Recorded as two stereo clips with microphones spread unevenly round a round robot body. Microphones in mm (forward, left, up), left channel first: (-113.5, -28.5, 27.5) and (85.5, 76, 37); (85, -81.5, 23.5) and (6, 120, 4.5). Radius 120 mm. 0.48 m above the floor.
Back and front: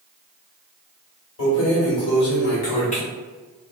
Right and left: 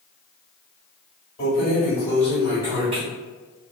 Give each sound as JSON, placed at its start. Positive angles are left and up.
{"t": 1.4, "sound": "keys jangling", "azimuth_deg": -130, "distance_m": 1.2}